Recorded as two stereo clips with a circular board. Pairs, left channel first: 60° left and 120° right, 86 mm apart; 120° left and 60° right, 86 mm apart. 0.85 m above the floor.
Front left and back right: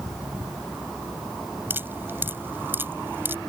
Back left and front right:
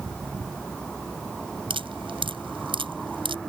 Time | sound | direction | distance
1.7 | dripping | 55° right | ?